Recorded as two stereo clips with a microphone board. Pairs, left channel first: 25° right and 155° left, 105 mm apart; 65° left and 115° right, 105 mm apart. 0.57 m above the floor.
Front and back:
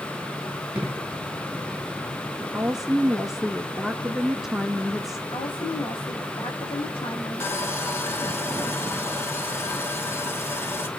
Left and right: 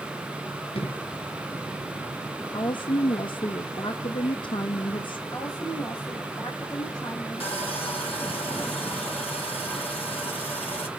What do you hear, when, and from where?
0.8 s an explosion: 80° left, 3.5 m
2.5 s a woman speaking: 70° left, 1.0 m
5.3 s a woman speaking: 15° left, 4.5 m
7.4 s sawing: 45° left, 2 m